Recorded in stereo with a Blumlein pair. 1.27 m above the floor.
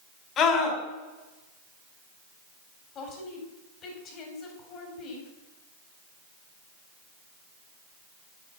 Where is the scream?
30° left, 4 m.